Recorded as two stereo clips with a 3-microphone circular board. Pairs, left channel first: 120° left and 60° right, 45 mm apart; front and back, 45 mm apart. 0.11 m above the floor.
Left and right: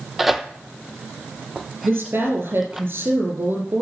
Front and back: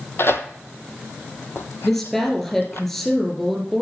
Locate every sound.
0.2 s tearing paper: 25° left, 0.7 m
1.8 s a woman speaking: 80° right, 3.5 m